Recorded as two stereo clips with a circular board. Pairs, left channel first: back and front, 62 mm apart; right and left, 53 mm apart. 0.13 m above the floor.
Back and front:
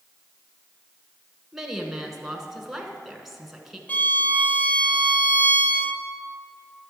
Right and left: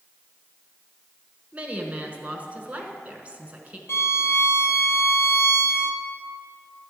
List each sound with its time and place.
1.5 s a woman speaking: 80° left, 1.1 m
3.9 s a violin: 120° right, 0.5 m